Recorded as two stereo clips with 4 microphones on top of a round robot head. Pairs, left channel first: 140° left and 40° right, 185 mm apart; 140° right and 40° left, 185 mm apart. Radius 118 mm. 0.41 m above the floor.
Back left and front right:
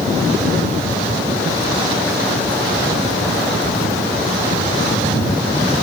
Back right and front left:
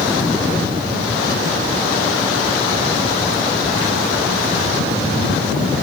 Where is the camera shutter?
No camera shutter in this recording.